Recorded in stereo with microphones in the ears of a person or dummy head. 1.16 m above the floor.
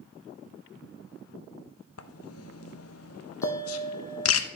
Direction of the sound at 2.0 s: 80° left.